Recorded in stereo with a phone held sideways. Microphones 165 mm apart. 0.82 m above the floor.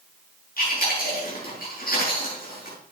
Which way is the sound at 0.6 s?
60° left (ahead or behind).